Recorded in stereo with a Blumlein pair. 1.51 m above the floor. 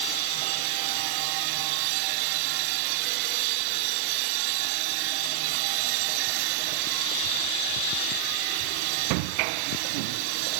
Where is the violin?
No violin in this recording.